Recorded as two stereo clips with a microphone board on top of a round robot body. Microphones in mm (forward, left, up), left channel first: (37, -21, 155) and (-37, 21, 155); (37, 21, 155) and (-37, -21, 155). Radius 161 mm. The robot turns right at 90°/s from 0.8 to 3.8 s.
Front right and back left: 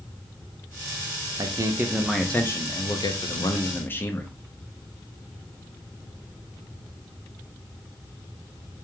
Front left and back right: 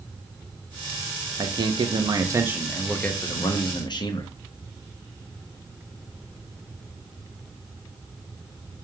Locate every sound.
1.4 s a man speaking: 175° left, 1.0 m; by 4.3 s 30° left, 1.0 m